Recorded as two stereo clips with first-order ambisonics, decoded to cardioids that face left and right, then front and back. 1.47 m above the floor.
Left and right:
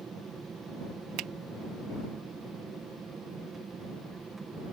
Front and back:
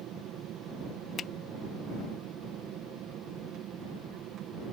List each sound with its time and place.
0.0 s an aircraft: 155° right
1.2 s a finger snap: 65° right